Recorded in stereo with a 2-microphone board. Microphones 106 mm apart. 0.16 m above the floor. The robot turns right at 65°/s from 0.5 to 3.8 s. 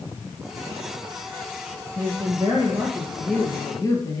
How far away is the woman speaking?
About 3 m.